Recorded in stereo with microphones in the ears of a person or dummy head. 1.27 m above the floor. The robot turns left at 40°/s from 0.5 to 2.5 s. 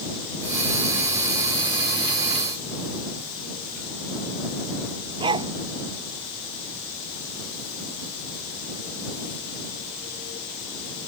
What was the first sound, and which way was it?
A dog barking, 25° right (ahead or behind).